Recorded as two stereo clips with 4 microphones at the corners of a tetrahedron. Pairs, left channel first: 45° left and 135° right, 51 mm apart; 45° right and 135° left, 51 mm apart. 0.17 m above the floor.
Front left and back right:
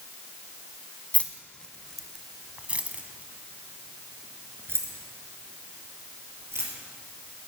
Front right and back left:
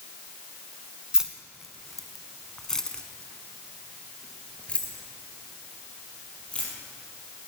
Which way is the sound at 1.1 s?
70° left.